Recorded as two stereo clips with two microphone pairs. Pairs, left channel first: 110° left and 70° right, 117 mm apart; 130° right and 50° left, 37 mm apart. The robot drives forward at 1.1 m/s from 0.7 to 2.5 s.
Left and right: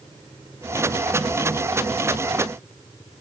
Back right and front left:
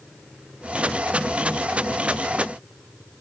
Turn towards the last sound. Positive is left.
No sound to turn to.